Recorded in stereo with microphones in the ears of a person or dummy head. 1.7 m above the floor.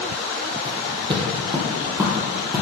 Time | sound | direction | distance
0.7 | footsteps | 30° right (ahead or behind) | 3 m